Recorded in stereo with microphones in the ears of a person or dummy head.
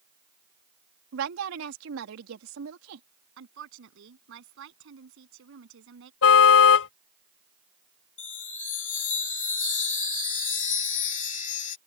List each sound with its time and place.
1.1 s a woman speaking: 70° right (ahead or behind)
3.4 s a woman speaking: 65° right (ahead or behind)
6.2 s a car horn: 75° left (ahead or behind)
8.2 s a chime: 40° left (ahead or behind)